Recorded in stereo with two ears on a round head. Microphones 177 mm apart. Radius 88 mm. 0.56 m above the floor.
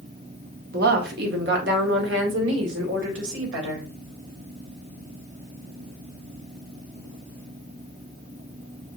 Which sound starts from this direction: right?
A woman speaking, at 0.7 s.